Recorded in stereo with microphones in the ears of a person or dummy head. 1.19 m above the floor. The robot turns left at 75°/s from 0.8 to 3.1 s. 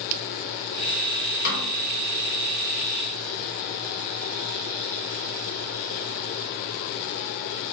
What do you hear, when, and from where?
1.4 s a snare drum: 50° left (ahead or behind), 2.5 m; by 1.7 s 30° left (ahead or behind), 2.5 m